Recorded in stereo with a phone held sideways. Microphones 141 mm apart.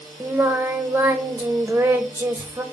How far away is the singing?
About 0.9 m.